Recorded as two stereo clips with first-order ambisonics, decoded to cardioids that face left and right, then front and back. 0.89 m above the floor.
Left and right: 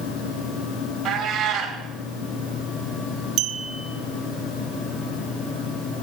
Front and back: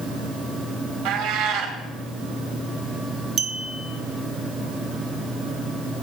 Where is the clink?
130° right, 0.9 m.